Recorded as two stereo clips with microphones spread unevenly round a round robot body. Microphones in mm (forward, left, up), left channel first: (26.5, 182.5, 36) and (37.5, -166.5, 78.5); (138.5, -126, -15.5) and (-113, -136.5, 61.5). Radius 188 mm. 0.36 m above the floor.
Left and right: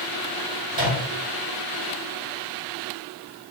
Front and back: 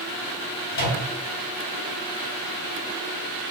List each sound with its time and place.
0.7 s a microwave: 20° right, 1.9 m